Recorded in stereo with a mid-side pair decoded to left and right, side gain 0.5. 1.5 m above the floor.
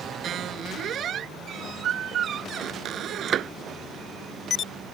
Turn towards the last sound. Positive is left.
turn(degrees=-55)